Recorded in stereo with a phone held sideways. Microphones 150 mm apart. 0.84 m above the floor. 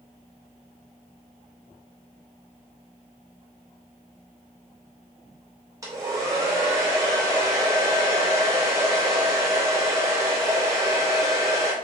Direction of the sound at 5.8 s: 25° right (ahead or behind).